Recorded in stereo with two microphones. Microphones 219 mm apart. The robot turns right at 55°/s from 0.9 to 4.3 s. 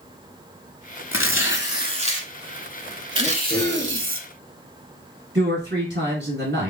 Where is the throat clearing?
100° right, 2 m; by 4.1 s 50° right, 2 m.